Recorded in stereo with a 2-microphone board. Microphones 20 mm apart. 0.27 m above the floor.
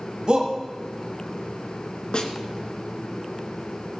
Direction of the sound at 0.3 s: 45° right (ahead or behind).